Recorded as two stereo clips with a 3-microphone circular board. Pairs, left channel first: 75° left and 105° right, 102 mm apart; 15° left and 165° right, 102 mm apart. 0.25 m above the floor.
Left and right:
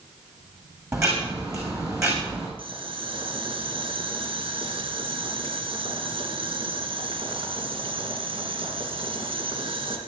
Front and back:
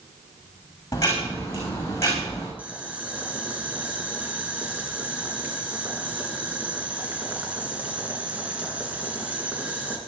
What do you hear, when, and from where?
0.9 s ticking: 45° right, 6 m
2.6 s boiling: 90° right, 3 m